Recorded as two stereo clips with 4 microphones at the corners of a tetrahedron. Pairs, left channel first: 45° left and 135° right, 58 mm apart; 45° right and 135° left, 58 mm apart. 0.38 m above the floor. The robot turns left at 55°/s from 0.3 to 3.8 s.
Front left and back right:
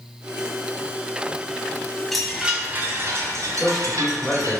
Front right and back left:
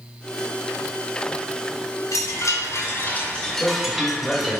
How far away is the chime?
About 1.8 m.